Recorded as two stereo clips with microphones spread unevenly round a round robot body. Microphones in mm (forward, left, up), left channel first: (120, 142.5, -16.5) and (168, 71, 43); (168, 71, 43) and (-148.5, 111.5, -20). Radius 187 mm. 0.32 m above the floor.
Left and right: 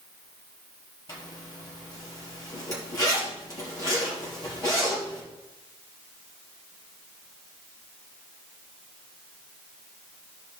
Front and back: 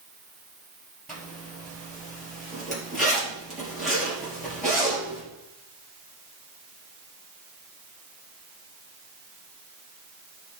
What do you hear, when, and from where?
1.1 s a zipper: 85° left, 4.5 m